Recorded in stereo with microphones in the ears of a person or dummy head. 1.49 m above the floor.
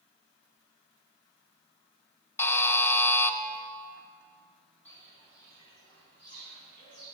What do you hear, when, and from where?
2.4 s a buzzer: 15° left (ahead or behind), 0.5 m
4.8 s footsteps: 10° left (ahead or behind), 2.5 m; by 7.0 s 40° left (ahead or behind), 3.5 m